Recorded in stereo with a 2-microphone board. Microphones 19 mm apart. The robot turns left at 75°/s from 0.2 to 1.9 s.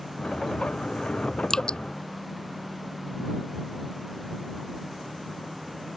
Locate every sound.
1.5 s dripping: 35° left (ahead or behind); by 1.8 s 55° left (ahead or behind)